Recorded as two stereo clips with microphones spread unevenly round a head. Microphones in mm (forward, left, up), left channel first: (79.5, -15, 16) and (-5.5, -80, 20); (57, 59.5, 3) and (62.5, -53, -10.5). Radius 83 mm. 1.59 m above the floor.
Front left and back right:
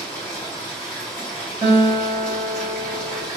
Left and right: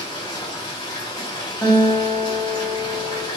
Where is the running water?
115° left, 1.5 m.